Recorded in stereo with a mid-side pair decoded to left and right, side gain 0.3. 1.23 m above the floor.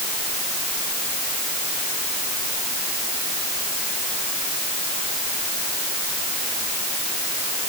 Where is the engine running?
I don't hear an engine running.